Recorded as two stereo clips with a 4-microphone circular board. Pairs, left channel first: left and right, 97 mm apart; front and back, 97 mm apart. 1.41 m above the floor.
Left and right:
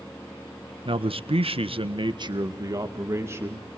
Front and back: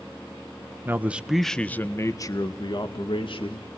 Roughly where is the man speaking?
Behind right.